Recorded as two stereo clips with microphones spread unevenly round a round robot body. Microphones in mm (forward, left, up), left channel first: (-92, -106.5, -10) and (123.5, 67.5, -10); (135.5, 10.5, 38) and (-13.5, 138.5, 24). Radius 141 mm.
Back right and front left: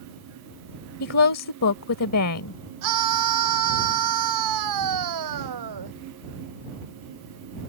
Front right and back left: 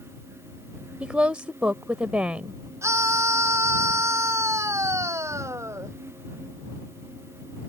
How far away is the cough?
I don't hear a cough.